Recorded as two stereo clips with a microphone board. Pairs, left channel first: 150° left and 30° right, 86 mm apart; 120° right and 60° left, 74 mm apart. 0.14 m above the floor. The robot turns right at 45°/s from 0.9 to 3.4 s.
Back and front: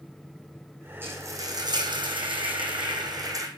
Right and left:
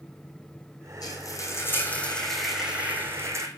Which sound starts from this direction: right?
Frying, at 1.0 s.